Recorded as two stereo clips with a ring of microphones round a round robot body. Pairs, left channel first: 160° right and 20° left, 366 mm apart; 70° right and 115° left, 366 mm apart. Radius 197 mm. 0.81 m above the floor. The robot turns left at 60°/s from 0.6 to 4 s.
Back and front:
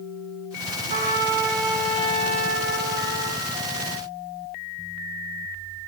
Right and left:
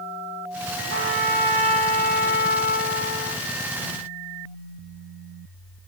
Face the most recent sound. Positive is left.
turn(degrees=-120)